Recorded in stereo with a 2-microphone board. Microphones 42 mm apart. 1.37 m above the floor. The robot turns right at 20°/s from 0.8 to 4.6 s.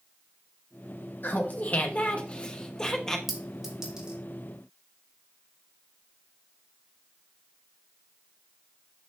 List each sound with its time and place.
1.2 s laughter: 125° left, 1.2 m; by 3.2 s 165° left, 1.2 m
3.3 s a clink: centre (ahead or behind), 1.8 m; by 4.2 s 15° right (ahead or behind), 1.8 m